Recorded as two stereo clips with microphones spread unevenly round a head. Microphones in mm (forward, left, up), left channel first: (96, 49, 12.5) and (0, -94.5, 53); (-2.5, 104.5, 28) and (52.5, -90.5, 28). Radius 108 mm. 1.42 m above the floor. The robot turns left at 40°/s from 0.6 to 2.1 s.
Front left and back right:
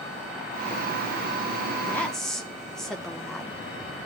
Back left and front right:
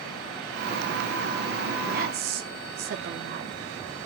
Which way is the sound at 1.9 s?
25° right.